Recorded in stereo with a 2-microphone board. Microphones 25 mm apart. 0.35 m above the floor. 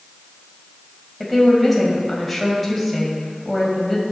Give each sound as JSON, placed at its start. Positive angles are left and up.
{"t": 1.2, "sound": "a woman speaking", "side_deg": 0, "distance_m": 2.0}